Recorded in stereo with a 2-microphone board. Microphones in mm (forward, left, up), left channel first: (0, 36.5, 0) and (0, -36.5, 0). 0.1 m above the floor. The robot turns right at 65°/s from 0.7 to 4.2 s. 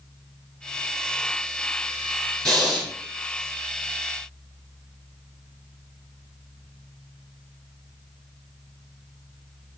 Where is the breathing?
10° left (ahead or behind), 1.3 m; by 2.9 s 5° right (ahead or behind), 1.3 m.